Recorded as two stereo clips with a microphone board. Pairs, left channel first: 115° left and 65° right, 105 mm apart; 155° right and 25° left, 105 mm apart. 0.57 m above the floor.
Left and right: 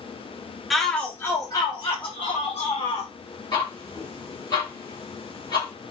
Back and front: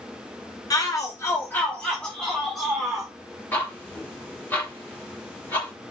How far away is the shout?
About 0.7 m.